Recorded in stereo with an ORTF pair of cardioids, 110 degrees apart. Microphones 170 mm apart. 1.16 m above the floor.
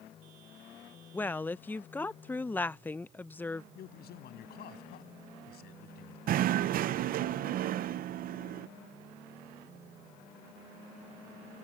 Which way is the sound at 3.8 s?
65° left.